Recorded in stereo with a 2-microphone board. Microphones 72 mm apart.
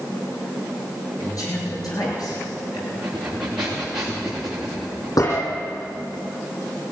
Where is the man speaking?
60° left (ahead or behind), 9 m; by 2.8 s 70° left (ahead or behind), 9 m.